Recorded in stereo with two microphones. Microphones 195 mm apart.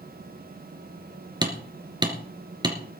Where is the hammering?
20° right (ahead or behind), 3 m.